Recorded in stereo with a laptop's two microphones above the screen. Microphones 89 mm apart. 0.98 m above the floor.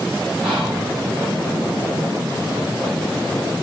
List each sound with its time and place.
0.4 s whispering: 10° right (ahead or behind), 5.5 m